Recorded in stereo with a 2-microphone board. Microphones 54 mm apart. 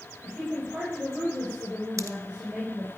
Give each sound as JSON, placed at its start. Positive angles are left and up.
{"t": 0.2, "sound": "a woman speaking", "side_deg": -10, "distance_m": 5.0}
{"t": 2.0, "sound": "a pop", "side_deg": -65, "distance_m": 0.8}